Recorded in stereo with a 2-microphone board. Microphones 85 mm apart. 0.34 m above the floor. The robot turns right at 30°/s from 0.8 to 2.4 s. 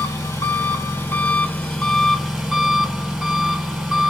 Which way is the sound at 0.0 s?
145° left.